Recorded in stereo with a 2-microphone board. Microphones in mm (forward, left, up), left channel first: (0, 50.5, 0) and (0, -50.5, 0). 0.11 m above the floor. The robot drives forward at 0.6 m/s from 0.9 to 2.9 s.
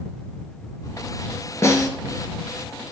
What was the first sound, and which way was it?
A snare drum, 30° left (ahead or behind).